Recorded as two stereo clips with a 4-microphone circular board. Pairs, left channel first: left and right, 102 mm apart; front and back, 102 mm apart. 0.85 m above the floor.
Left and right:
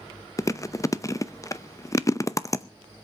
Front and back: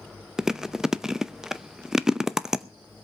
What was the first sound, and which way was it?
Chewing, 100° left.